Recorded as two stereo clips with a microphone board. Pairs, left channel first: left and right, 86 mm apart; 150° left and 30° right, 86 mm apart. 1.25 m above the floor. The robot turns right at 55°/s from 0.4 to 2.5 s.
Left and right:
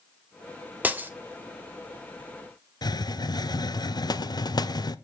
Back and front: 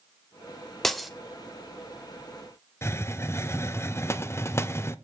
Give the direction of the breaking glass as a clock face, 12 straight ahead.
4 o'clock.